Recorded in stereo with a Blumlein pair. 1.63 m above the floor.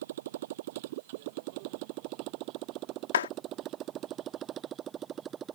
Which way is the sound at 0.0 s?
55° right.